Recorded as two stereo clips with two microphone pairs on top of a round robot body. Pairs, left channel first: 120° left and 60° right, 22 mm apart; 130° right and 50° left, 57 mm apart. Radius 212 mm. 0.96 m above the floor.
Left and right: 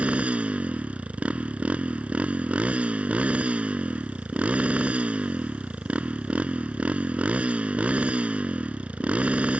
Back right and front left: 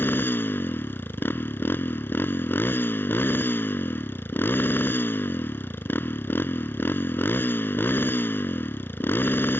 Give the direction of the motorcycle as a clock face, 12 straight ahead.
3 o'clock.